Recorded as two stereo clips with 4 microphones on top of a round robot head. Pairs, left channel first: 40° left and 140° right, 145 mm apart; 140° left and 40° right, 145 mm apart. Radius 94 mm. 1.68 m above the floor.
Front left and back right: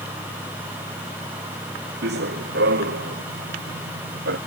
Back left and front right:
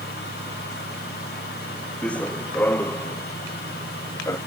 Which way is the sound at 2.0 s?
135° right.